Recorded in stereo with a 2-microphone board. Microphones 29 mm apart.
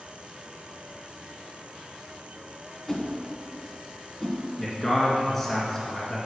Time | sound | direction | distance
2.9 | a whoosh | 10° left (ahead or behind) | 1.7 m
4.6 | a man speaking | 10° left (ahead or behind) | 2 m